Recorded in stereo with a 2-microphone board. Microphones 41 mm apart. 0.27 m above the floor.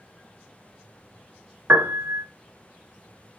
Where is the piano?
70° right (ahead or behind), 0.9 m.